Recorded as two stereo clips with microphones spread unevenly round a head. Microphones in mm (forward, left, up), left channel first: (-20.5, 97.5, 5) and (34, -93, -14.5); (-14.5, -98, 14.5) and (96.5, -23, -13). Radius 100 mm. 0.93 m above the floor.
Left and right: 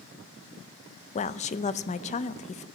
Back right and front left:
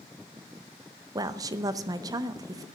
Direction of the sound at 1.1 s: 60° left.